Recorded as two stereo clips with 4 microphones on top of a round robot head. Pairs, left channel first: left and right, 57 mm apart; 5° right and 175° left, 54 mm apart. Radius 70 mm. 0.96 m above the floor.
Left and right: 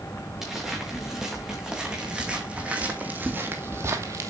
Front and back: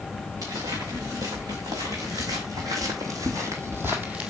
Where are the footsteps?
170° right, 4.5 m; by 4.3 s 105° right, 1.5 m.